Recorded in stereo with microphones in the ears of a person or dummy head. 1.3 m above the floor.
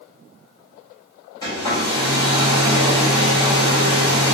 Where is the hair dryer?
20° left (ahead or behind), 1.1 m.